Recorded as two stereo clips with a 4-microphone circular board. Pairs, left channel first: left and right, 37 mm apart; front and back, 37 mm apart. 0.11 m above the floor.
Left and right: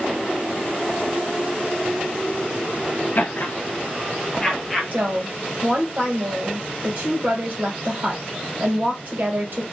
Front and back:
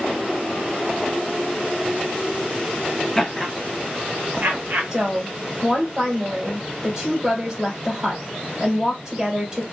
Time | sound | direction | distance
3.1 | laughter | 85° left | 1.8 m
4.9 | a woman speaking | 115° right | 2.5 m